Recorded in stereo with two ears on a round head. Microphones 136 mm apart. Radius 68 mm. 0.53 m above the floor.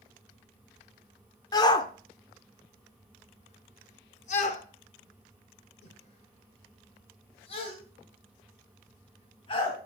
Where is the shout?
25° left (ahead or behind), 1.5 m; by 9.8 s 35° left (ahead or behind), 4 m.